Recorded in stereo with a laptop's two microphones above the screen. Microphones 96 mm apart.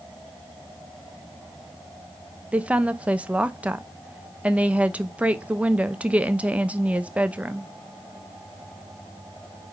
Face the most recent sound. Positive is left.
turn(degrees=-15)  # may be behind; listen again after turning